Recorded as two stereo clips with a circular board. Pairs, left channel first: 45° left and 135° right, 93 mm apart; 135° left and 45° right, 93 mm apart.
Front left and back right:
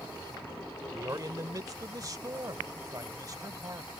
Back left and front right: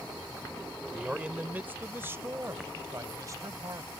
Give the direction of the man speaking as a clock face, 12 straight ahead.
4 o'clock.